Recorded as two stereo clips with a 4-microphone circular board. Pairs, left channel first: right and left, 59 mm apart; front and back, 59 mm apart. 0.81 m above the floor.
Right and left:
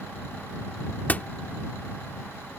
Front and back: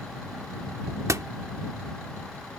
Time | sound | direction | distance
1.1 | a door slam | 150° right | ?